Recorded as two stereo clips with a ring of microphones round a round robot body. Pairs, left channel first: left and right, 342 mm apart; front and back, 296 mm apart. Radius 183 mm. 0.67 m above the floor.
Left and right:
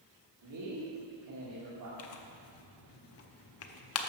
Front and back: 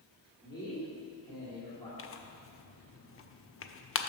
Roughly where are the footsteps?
No footsteps in this recording.